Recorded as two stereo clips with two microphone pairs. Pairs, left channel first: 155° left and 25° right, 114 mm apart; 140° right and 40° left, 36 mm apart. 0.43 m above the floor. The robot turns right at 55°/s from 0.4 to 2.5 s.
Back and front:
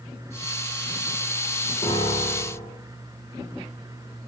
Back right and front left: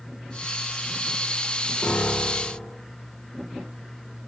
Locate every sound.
1.8 s a piano: straight behind, 6.5 m; by 2.7 s 140° right, 6.5 m